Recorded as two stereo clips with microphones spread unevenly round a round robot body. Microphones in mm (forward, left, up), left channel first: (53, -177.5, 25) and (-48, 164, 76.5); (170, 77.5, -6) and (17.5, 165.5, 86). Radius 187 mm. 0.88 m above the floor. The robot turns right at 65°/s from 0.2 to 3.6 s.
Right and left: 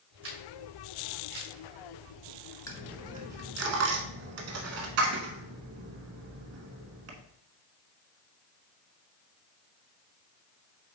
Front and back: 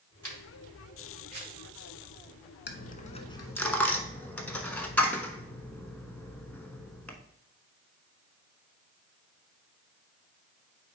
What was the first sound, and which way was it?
A camera shutter, 50° left.